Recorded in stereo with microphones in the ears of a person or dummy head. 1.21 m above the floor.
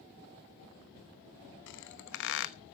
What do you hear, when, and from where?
1.7 s a squeak: 60° left (ahead or behind), 0.9 m